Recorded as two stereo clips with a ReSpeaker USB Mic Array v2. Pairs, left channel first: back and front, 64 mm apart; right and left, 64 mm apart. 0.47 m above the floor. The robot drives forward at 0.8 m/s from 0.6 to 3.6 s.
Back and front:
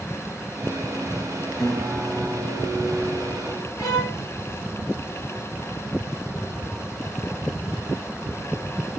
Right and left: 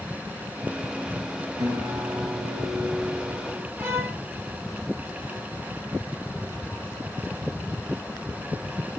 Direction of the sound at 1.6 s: 100° left.